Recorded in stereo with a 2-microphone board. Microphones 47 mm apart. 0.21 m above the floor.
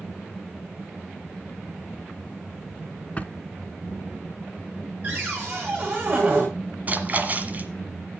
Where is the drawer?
30° left (ahead or behind), 0.8 m.